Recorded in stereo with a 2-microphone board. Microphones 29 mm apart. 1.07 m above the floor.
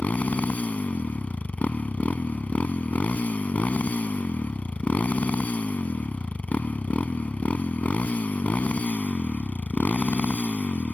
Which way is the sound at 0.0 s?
60° left (ahead or behind).